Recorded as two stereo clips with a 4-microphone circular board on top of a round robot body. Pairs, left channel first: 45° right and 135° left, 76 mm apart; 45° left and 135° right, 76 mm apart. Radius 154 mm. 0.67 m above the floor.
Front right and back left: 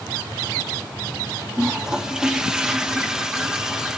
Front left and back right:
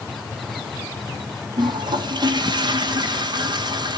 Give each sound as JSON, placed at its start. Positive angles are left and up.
{"t": 1.6, "sound": "a toilet flushing", "azimuth_deg": -145, "distance_m": 1.4}